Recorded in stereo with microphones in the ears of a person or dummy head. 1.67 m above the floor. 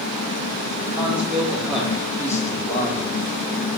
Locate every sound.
0.9 s a man speaking: 10° right (ahead or behind), 4 m; by 3.0 s 35° left (ahead or behind), 2 m